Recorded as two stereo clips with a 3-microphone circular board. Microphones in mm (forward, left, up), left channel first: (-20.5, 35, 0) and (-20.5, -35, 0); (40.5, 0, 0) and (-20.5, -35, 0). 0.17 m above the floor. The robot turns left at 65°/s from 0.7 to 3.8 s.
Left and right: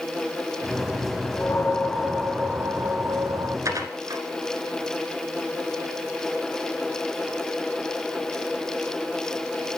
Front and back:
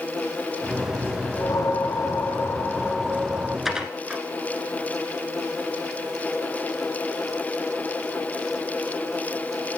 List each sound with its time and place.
1.4 s a whoosh: 60° left, 0.9 m; by 3.5 s 85° right, 0.9 m
3.6 s dishes clattering: 65° right, 1.4 m; by 4.2 s 75° right, 1.4 m